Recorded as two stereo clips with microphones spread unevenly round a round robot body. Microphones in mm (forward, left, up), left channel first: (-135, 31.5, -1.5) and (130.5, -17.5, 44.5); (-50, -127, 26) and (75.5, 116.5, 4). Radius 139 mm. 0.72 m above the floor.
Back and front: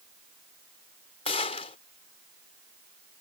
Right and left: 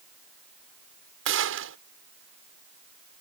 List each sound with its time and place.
1.2 s a gunshot: 105° left